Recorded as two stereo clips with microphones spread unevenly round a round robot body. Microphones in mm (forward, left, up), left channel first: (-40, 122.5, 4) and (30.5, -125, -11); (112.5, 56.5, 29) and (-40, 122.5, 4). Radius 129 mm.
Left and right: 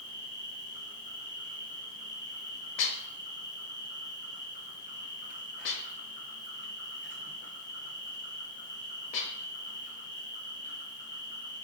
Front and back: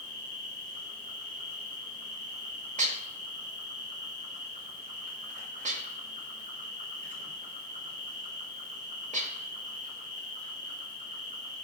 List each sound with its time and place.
0.0 s an insect: 145° left, 3 m
2.8 s dishes clattering: 140° left, 1.2 m